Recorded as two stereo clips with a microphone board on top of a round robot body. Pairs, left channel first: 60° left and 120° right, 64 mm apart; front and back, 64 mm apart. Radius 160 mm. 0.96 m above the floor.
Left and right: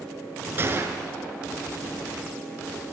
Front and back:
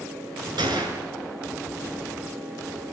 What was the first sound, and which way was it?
A gunshot, 175° right.